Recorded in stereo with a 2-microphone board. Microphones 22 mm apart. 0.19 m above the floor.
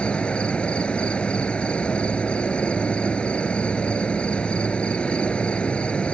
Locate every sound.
0.0 s an insect: 70° left (ahead or behind)